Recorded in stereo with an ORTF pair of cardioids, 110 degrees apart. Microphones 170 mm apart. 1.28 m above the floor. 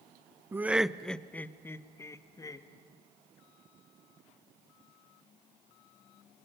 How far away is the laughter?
About 0.5 m.